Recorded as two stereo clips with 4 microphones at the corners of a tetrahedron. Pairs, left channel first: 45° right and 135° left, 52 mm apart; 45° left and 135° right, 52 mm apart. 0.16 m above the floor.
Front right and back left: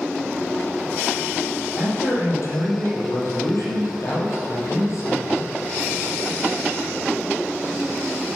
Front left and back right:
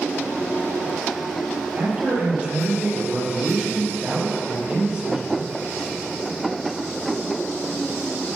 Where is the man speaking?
65° right, 4.5 m.